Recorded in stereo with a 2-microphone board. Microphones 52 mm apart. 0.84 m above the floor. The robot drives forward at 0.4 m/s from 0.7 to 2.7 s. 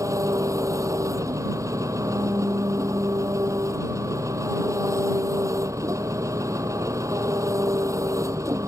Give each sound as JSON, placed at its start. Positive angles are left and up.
{"t": 0.0, "sound": "an engine running", "side_deg": -85}